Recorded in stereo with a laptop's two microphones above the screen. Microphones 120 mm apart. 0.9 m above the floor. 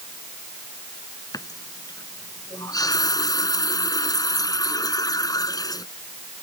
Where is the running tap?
30° left (ahead or behind).